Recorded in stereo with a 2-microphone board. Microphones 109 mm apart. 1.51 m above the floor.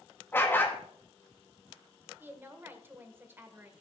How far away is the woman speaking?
About 1.6 m.